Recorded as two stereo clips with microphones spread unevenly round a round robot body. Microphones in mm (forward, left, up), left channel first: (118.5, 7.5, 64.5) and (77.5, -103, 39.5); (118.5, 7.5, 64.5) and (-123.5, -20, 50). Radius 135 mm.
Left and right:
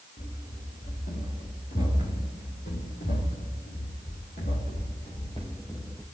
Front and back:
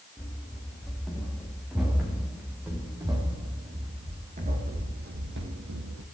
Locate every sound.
0.2 s running footsteps: 95° left, 5 m; by 6.0 s 150° left, 2.0 m